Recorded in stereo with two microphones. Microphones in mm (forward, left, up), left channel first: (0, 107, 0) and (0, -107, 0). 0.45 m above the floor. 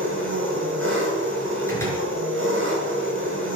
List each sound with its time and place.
0.0 s an engine running: 65° right (ahead or behind), 6 m
1.7 s a door slam: 10° left (ahead or behind), 4.5 m